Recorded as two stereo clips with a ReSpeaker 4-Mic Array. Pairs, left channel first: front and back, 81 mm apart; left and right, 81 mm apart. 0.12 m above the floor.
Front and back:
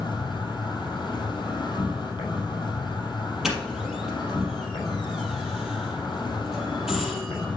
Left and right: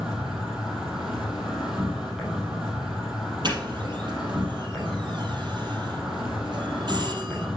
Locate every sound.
0.0 s an insect: 5° right, 3.5 m
3.4 s a doorbell: 95° right, 4 m